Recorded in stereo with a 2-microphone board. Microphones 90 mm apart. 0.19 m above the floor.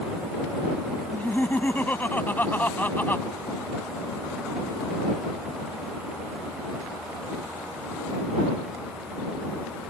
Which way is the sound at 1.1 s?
20° left (ahead or behind).